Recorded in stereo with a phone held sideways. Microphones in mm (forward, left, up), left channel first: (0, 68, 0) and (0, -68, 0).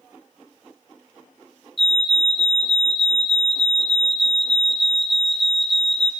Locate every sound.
1.8 s a fire alarm: centre (ahead or behind), 1.3 m